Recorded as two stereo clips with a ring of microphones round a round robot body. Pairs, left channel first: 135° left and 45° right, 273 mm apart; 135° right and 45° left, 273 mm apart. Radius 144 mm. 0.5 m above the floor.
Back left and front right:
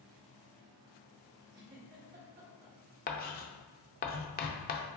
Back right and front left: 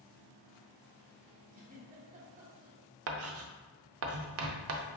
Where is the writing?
80° left, 0.5 m.